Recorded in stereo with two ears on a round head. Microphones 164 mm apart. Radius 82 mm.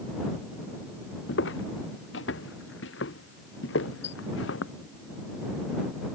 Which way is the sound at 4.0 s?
70° left (ahead or behind).